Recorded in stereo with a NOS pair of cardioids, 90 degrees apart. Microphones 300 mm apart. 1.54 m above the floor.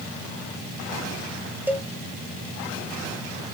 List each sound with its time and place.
1.7 s a cowbell: 5° right, 1.0 m